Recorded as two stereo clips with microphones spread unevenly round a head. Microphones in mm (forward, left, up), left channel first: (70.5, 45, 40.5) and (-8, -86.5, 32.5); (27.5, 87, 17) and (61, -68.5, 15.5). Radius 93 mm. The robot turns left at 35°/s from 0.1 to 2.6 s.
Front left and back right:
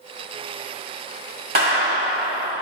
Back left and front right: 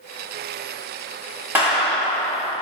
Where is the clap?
160° right, 5 m; by 2.6 s 165° left, 5 m.